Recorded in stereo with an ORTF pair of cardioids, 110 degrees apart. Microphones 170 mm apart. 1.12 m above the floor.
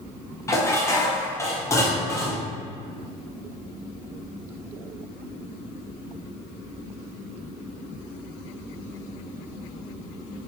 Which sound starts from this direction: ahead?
Dishes clattering, at 0.5 s.